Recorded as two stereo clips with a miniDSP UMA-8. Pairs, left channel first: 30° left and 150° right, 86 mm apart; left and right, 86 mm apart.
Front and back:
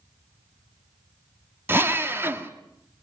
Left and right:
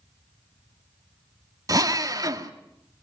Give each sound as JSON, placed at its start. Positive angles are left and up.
{"t": 1.7, "sound": "a drill", "azimuth_deg": -100, "distance_m": 1.6}